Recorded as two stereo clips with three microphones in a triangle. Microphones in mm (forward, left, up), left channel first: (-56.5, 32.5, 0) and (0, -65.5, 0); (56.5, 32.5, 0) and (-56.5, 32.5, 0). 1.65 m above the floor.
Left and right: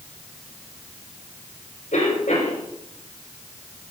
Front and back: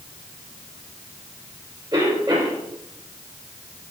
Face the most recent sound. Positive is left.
turn(degrees=130)